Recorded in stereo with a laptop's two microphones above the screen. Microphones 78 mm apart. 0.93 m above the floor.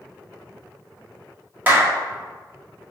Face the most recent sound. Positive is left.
turn(degrees=-25)  # may be behind; listen again after turning